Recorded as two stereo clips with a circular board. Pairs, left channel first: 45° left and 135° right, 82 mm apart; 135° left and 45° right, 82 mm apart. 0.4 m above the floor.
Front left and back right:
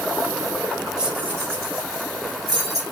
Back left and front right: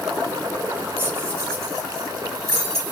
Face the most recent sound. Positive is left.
turn(degrees=-95)